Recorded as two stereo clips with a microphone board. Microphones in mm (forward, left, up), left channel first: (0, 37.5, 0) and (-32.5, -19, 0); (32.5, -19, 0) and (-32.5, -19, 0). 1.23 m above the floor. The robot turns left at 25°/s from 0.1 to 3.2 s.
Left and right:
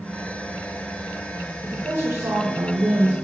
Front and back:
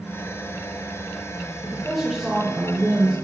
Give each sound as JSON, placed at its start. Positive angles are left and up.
{"t": 1.6, "sound": "a woman speaking", "azimuth_deg": -80, "distance_m": 1.2}